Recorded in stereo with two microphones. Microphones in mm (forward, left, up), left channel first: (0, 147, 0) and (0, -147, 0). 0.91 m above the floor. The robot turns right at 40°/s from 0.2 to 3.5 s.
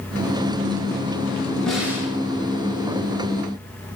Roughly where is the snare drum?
Centre.